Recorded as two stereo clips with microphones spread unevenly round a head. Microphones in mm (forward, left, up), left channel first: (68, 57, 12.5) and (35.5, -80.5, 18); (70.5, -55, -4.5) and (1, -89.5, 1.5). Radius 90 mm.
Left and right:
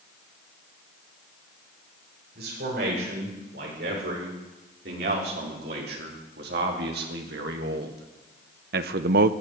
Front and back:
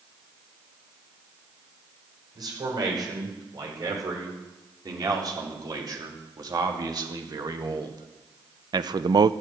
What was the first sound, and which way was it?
A man speaking, 125° right.